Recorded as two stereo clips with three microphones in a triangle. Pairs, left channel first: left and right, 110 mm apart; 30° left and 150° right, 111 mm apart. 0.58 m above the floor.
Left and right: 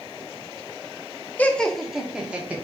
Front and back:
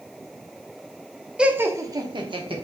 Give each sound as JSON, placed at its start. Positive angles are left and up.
{"t": 1.4, "sound": "laughter", "azimuth_deg": 140, "distance_m": 0.6}